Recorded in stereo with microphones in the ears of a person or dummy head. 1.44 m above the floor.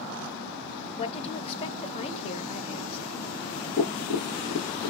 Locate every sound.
1.0 s a woman speaking: 30° left (ahead or behind), 0.7 m
3.8 s tapping: 30° left (ahead or behind), 0.8 m